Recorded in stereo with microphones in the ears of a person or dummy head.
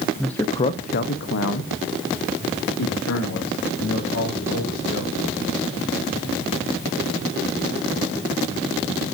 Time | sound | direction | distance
0.2 | a man speaking | 5° right (ahead or behind) | 0.7 m